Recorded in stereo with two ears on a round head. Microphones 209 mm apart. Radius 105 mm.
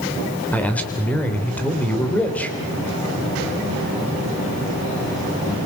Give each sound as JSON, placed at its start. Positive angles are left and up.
{"t": 0.5, "sound": "a man speaking", "side_deg": 5, "distance_m": 3.0}